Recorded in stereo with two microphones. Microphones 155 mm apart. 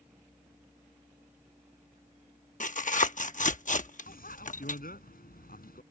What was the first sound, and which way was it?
Tearing paper, 55° left (ahead or behind).